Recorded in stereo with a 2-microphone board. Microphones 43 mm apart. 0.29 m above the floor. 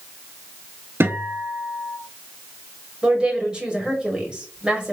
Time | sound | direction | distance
1.0 | a guitar | 55° right (ahead or behind) | 0.9 m
3.0 | a woman speaking | 20° right (ahead or behind) | 1.5 m